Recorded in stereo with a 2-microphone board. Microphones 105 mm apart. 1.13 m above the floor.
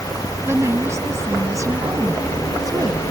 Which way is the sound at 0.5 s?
25° right (ahead or behind).